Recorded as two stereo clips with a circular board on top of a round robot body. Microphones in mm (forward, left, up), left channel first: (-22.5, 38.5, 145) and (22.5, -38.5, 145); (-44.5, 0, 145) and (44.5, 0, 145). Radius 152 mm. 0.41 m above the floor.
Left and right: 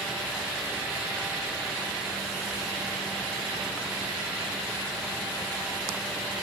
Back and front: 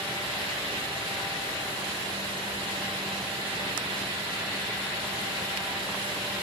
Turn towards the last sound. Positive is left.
No sound to turn to.